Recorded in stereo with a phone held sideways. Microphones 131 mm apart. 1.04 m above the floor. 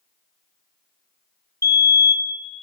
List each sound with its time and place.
1.6 s a fire alarm: 25° left (ahead or behind), 1.1 m